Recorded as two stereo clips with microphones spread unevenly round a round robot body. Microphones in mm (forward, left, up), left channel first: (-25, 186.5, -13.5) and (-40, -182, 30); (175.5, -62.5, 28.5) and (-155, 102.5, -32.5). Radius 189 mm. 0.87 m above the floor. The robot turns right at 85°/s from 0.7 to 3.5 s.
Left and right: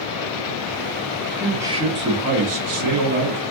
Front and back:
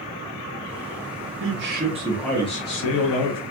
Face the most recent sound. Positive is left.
turn(degrees=-20)